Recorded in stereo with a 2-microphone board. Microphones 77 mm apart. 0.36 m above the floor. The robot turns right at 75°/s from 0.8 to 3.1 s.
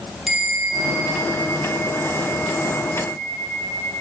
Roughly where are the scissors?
I don't hear scissors.